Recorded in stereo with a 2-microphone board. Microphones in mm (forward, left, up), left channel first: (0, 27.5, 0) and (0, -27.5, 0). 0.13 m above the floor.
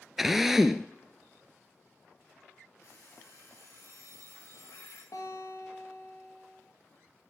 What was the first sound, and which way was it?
A drill, 5° right (ahead or behind).